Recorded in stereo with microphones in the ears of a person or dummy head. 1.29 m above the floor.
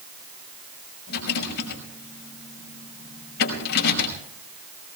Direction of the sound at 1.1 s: 65° left (ahead or behind).